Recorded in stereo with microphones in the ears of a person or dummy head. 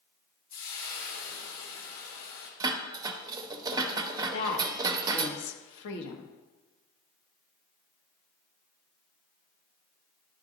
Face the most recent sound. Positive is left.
turn(degrees=70)  # may be behind; listen again after turning